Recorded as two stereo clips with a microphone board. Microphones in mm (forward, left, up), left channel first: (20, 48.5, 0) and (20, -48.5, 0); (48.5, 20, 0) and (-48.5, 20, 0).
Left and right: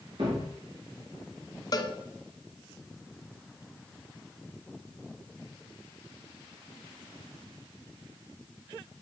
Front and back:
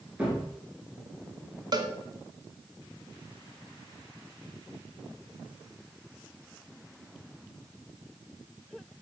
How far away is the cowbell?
About 0.8 m.